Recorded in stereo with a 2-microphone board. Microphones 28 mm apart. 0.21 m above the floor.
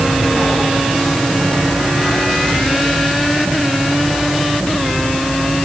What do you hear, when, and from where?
Only background noise.